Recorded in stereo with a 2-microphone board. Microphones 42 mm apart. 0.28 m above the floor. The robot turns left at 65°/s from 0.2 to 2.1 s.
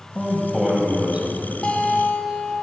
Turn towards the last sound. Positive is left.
turn(degrees=30)